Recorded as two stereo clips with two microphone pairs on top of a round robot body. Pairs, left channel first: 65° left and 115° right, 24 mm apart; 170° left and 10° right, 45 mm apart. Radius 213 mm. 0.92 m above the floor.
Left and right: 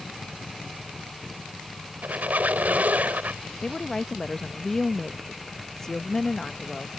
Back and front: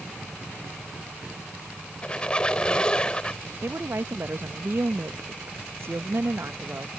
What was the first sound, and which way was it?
A squeak, 120° right.